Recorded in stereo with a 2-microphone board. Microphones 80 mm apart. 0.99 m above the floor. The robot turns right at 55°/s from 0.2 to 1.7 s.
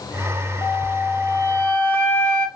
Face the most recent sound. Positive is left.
turn(degrees=145)